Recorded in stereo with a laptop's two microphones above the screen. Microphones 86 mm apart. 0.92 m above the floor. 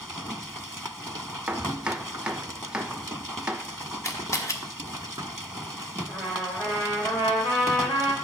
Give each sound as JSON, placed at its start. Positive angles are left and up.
{"t": 1.5, "sound": "chopping", "side_deg": -10, "distance_m": 0.9}
{"t": 4.0, "sound": "a camera shutter", "side_deg": 40, "distance_m": 1.2}
{"t": 6.1, "sound": "a trumpet", "side_deg": 70, "distance_m": 3.5}